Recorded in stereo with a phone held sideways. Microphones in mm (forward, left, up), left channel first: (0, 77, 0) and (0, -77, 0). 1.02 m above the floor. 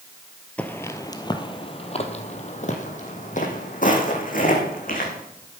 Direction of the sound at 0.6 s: 10° left (ahead or behind).